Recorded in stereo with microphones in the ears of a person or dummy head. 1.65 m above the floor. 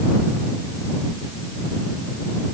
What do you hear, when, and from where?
Only background noise.